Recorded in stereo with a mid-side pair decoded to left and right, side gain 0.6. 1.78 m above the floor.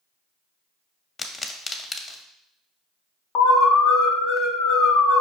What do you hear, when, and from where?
1.2 s a pop: 20° left, 0.6 m
3.4 s an alarm: 65° left, 0.7 m